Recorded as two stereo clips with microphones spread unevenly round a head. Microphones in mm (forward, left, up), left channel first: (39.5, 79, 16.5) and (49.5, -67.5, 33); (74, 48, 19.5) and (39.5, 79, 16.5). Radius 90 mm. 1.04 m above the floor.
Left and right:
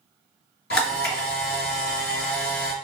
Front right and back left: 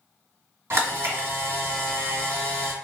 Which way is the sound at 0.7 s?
135° left.